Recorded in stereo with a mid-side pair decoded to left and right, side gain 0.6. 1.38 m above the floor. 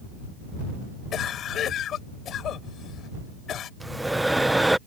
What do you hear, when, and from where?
1.1 s a cough: 50° left
3.8 s breathing: 5° right